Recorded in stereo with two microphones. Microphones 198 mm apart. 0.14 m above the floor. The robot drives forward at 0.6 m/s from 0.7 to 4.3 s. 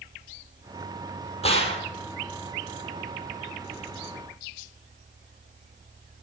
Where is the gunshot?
30° left (ahead or behind), 3 m.